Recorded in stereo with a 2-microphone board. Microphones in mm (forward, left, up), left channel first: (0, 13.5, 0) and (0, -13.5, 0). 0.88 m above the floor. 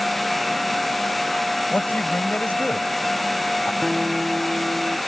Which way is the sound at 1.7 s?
75° left (ahead or behind).